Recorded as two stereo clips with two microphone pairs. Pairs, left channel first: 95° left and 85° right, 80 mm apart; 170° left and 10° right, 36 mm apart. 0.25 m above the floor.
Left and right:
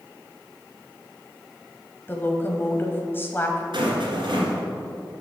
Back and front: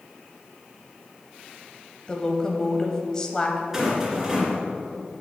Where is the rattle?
90° right, 2 m.